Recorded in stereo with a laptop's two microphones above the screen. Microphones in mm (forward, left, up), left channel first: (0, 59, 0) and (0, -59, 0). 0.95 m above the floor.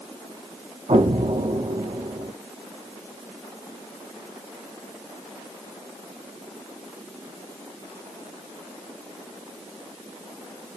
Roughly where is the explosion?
Right.